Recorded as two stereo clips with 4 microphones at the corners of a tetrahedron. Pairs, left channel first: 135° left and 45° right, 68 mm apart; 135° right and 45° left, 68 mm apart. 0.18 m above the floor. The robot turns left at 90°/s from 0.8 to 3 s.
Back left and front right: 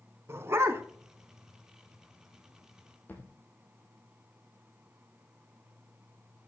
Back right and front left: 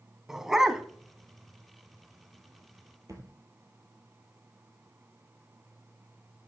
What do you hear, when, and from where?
0.3 s a dog barking: 35° right, 0.7 m; by 0.8 s 40° right, 0.7 m
3.1 s a thud: 75° left, 1.9 m